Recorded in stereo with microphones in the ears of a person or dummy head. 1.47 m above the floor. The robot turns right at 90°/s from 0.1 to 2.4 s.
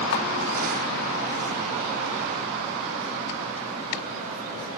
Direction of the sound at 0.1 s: 80° left.